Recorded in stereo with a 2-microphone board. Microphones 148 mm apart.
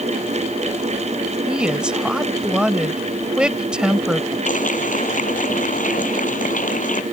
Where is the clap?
65° left (ahead or behind).